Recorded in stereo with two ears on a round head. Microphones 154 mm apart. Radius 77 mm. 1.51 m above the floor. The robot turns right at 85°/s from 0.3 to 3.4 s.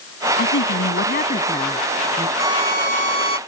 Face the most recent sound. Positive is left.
turn(degrees=-75)